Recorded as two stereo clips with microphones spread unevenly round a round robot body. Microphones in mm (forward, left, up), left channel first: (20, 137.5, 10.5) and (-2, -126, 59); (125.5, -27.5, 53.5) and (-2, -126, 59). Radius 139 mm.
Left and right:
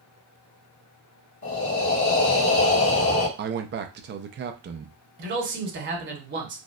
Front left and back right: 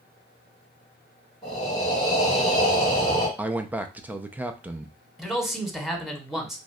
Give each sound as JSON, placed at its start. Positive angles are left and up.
{"t": 1.4, "sound": "breathing", "azimuth_deg": 110, "distance_m": 1.7}
{"t": 3.4, "sound": "a man speaking", "azimuth_deg": -65, "distance_m": 0.5}
{"t": 5.2, "sound": "a man speaking", "azimuth_deg": -50, "distance_m": 1.6}